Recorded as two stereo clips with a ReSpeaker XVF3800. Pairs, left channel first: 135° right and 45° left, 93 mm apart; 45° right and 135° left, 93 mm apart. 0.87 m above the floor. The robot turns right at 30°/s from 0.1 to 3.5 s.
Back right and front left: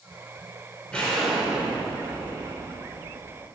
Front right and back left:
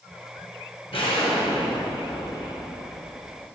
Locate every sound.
0.9 s an explosion: 55° right, 2.5 m; by 3.5 s 20° left, 2.5 m